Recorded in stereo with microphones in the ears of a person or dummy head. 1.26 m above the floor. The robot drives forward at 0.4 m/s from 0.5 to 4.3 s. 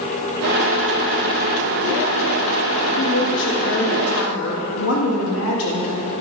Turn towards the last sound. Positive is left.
turn(degrees=85)